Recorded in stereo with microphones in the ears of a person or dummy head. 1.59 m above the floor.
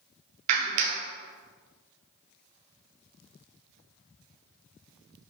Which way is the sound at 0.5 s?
40° right (ahead or behind).